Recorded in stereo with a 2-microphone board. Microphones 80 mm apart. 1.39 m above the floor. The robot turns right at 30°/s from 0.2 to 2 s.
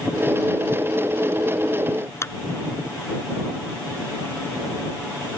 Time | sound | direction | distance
2.2 | a clap | 35° left (ahead or behind) | ?